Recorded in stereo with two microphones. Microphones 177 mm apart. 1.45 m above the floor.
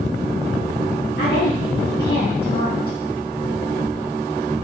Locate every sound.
1.2 s a woman speaking: 65° left (ahead or behind), 1.1 m